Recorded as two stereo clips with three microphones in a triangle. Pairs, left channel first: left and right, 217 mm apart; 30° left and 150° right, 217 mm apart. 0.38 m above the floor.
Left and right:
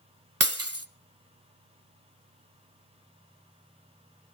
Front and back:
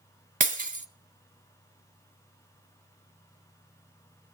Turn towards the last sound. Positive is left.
turn(degrees=-95)